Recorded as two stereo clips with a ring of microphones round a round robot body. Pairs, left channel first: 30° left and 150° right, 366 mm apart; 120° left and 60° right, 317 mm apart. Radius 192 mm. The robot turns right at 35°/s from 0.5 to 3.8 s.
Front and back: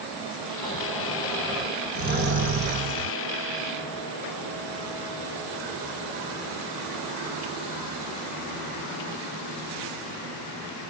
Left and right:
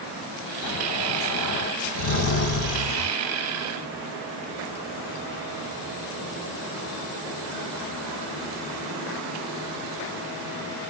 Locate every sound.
0.6 s snoring: 100° left, 1.9 m; by 3.2 s 170° right, 1.9 m